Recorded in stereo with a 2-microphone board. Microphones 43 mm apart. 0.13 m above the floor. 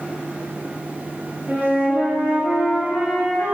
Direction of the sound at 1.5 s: 55° right (ahead or behind).